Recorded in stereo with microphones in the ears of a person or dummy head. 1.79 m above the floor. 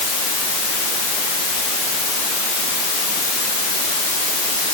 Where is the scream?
No scream in this recording.